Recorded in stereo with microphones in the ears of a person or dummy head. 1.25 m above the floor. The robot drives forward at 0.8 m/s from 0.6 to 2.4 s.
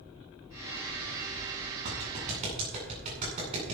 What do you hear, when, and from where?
1.9 s a clap: 35° right (ahead or behind), 8.5 m